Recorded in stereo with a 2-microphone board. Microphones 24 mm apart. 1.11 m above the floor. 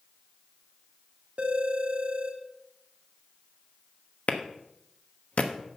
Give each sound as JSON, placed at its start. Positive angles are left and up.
{"t": 1.4, "sound": "a phone ringing", "side_deg": -45, "distance_m": 1.8}
{"t": 4.3, "sound": "a clap", "side_deg": 65, "distance_m": 1.1}